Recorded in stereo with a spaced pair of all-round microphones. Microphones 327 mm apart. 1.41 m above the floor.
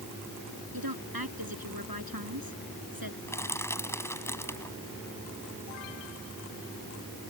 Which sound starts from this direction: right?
A woman speaking, at 0.7 s.